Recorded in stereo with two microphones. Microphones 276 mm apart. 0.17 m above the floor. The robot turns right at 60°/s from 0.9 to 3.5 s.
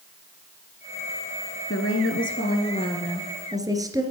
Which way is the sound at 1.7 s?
85° left.